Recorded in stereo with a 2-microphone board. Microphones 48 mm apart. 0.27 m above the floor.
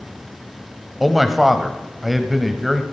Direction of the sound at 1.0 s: Centre (ahead or behind).